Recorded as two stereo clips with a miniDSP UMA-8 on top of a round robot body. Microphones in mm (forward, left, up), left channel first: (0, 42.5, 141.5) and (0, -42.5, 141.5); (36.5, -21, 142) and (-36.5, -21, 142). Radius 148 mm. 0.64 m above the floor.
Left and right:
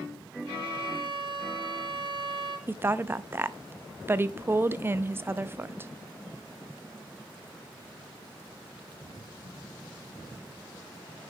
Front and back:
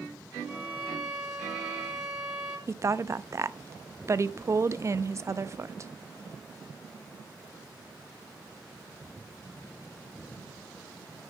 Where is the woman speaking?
145° right, 0.6 m.